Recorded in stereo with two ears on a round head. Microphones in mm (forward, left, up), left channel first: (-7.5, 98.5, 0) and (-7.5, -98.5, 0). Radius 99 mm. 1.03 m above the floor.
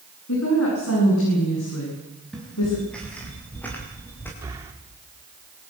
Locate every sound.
0.3 s a woman speaking: 75° left (ahead or behind), 9 m; by 2.8 s 85° left, 8.5 m
2.3 s footsteps: 5° left (ahead or behind), 8 m; by 4.3 s 10° left (ahead or behind), 8 m
4.4 s breathing: 15° right (ahead or behind), 3 m